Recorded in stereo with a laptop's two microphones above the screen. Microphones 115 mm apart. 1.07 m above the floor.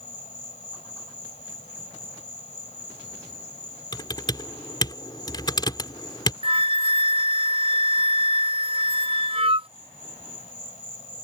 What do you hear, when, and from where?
0.0 s an insect: 80° left
3.9 s typing on a keyboard: 40° left (ahead or behind)
6.4 s a flute: 50° right (ahead or behind)